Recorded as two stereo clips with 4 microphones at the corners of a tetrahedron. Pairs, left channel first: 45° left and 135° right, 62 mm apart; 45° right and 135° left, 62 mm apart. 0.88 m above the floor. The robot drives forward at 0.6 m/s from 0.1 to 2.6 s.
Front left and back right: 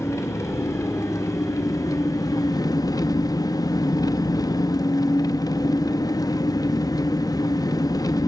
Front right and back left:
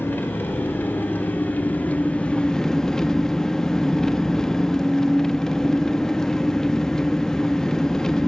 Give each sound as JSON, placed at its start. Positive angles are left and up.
{"t": 0.0, "sound": "an engine running", "azimuth_deg": 10, "distance_m": 1.9}